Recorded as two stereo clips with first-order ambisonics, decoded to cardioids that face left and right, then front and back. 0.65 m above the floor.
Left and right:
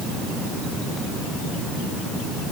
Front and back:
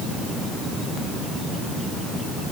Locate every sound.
Only background noise.